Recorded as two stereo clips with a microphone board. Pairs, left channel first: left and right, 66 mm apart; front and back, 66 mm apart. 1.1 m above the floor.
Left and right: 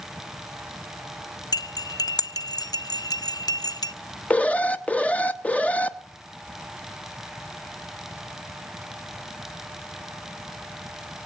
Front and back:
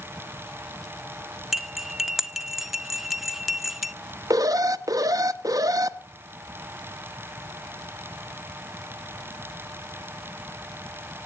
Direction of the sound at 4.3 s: 160° left.